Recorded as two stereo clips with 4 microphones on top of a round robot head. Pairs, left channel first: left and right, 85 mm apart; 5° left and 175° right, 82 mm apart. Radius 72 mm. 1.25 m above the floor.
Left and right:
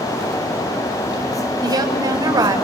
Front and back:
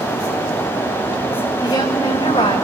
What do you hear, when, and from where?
1.6 s a woman speaking: 50° right, 6.5 m